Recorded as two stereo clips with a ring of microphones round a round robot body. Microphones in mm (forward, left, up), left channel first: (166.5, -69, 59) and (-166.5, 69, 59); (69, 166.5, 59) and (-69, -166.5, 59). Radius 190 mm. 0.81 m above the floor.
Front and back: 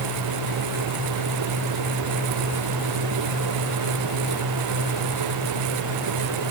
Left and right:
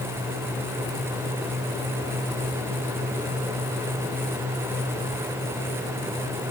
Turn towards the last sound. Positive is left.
No sound to turn to.